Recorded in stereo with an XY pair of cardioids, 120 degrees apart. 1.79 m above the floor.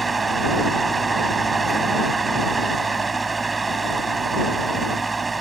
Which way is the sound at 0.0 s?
25° right.